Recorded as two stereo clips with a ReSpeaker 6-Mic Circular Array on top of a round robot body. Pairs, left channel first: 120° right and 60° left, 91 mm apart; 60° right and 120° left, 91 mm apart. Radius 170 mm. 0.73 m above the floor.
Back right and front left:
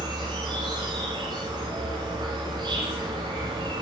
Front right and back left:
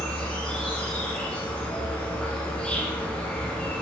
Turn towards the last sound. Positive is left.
turn(degrees=20)